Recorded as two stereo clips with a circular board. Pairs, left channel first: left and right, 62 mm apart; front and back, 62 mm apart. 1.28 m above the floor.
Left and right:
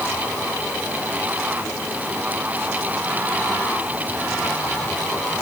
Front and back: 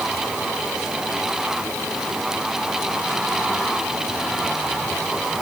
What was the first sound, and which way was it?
Only background noise.